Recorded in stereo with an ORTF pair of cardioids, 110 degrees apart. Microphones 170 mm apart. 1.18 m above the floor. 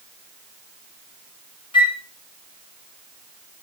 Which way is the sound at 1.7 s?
30° left.